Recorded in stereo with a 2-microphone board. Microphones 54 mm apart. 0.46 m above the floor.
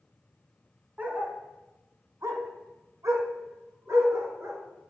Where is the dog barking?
25° right (ahead or behind), 1.4 m; by 4.6 s 60° right (ahead or behind), 2 m.